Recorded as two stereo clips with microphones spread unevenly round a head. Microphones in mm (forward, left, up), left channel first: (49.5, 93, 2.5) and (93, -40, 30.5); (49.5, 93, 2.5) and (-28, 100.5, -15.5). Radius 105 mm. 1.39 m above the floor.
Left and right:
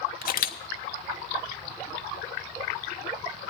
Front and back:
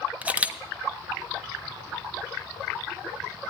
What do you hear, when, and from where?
0.2 s a camera shutter: 100° left, 1.1 m